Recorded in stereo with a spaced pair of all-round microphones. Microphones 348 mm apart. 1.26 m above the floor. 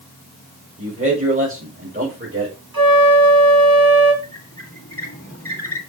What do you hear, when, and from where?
0.8 s a man speaking: 15° right (ahead or behind), 4.5 m; by 2.6 s 30° right (ahead or behind), 4.5 m
2.7 s a flute: 75° right (ahead or behind), 4 m
4.2 s a squeak: 40° left (ahead or behind), 2 m